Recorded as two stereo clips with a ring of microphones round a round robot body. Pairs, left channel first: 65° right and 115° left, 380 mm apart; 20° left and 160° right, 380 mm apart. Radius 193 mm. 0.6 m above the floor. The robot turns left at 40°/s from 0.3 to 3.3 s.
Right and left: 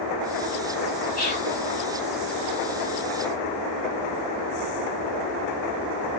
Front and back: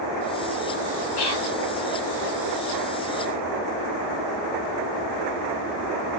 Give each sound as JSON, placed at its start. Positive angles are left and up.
{"t": 1.2, "sound": "whispering", "azimuth_deg": 0, "distance_m": 3.0}